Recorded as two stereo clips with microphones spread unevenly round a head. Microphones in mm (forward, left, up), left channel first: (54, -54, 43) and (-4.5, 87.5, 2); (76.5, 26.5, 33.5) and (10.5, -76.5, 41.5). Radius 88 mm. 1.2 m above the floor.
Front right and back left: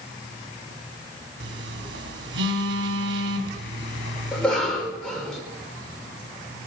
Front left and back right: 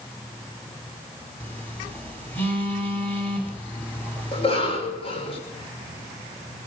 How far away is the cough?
About 5.5 m.